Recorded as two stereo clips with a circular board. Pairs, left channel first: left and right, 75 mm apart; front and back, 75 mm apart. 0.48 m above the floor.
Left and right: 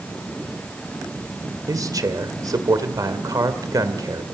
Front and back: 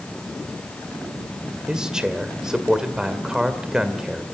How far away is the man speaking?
About 2 m.